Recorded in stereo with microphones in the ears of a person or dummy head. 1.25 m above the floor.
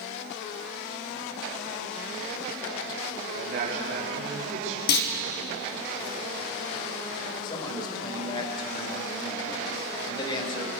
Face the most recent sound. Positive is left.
turn(degrees=30)  # may be behind; listen again after turning